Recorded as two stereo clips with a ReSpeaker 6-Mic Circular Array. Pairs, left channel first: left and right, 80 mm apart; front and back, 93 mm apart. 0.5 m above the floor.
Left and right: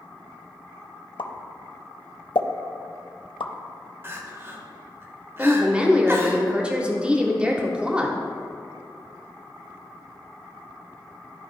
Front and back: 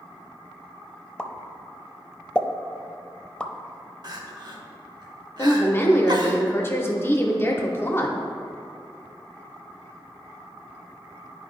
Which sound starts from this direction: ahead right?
A woman speaking, at 5.4 s.